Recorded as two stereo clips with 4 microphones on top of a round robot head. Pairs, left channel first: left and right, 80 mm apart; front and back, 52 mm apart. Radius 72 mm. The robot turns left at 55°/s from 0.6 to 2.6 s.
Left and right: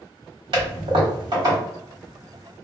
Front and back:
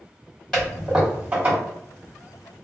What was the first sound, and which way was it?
A toilet flushing, 80° right.